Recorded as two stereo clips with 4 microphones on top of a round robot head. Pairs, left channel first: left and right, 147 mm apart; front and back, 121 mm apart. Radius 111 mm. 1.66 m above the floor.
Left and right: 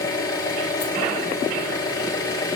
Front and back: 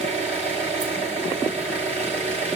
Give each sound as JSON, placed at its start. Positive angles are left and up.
{"t": 0.0, "sound": "an engine running", "azimuth_deg": 155, "distance_m": 4.0}